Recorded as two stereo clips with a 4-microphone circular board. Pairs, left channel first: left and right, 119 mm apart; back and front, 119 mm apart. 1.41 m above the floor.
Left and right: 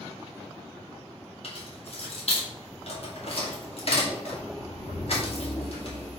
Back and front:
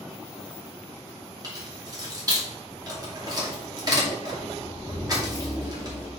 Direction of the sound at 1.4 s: 55° left.